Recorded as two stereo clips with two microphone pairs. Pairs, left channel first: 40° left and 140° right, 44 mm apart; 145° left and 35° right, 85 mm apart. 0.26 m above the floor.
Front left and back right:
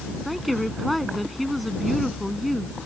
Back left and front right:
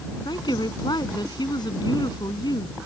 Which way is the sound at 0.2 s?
130° left.